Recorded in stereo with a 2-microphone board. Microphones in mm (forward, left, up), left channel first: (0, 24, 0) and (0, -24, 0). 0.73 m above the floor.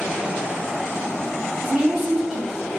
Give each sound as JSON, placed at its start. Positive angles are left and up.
{"t": 1.6, "sound": "a woman speaking", "side_deg": -5, "distance_m": 1.9}